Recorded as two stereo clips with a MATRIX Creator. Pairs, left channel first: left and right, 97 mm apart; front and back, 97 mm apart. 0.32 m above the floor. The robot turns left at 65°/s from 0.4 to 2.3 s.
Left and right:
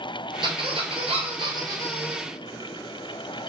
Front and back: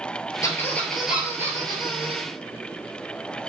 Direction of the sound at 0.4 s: 55° right.